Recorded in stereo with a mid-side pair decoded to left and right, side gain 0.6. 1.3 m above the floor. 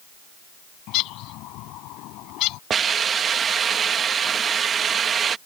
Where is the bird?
70° left.